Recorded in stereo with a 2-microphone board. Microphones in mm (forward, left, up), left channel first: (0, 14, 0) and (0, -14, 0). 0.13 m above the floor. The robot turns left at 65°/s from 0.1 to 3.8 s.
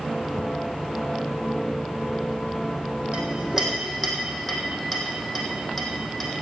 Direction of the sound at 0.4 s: 60° left (ahead or behind).